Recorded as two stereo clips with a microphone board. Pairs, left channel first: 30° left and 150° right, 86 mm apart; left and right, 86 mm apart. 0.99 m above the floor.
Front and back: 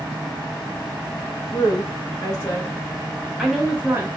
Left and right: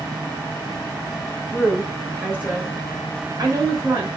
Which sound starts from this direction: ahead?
A woman speaking, at 1.5 s.